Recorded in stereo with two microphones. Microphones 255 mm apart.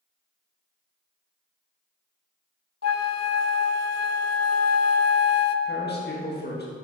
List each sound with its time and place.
2.8 s a flute: 75° left (ahead or behind), 0.5 m
5.7 s a man speaking: 40° left (ahead or behind), 1.6 m